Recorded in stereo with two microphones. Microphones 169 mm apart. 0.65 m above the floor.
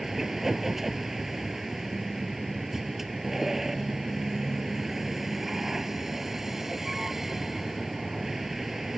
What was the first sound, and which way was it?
A vehicle, centre (ahead or behind).